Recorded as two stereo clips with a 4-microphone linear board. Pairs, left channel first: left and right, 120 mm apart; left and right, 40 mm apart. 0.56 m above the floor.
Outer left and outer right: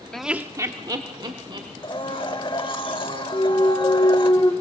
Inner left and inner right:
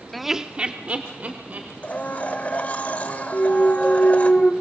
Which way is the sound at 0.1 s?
5° left (ahead or behind).